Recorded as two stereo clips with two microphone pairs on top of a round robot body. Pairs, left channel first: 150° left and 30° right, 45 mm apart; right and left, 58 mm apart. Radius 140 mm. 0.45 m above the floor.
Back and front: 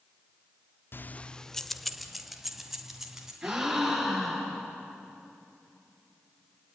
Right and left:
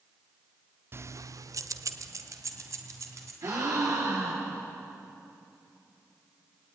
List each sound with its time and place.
0.9 s keys jangling: 125° left, 0.7 m; by 3.3 s 50° left, 3.5 m
3.4 s a gasp: 55° left, 7 m